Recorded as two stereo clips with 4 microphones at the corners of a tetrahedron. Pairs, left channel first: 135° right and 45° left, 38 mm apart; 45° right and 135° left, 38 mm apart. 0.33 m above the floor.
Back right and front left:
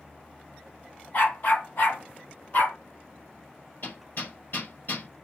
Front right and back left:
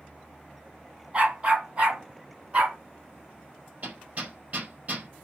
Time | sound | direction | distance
1.1 | a dog barking | 170° right | 4.5 m
3.8 | hammering | straight behind | 5 m